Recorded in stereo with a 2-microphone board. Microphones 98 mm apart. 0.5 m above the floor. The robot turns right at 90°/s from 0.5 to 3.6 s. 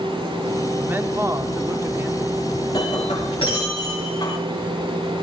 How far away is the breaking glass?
About 7 m.